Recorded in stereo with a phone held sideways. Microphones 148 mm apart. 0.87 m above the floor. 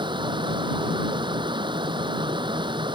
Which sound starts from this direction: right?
A fan, at 0.0 s.